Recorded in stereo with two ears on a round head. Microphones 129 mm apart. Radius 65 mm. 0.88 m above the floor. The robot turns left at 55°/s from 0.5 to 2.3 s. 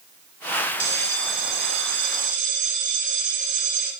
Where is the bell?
40° right, 1.7 m; by 3.9 s 120° right, 1.7 m.